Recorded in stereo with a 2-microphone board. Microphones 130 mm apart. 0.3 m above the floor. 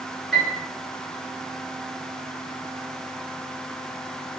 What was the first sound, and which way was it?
A piano, centre (ahead or behind).